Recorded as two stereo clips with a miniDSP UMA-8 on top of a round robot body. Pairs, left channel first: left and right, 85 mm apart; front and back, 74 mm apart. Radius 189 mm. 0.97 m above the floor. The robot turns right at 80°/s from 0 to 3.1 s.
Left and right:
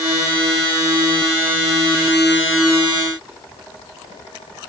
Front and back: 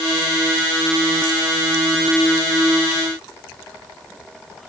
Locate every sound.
Only background noise.